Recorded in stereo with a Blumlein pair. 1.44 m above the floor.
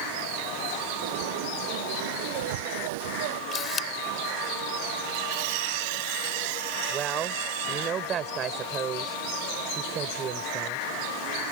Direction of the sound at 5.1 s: 45° right.